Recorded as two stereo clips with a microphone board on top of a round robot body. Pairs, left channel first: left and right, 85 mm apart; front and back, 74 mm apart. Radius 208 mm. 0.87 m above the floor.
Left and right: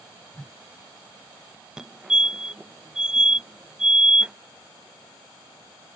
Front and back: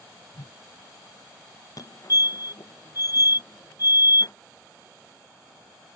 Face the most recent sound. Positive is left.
turn(degrees=-10)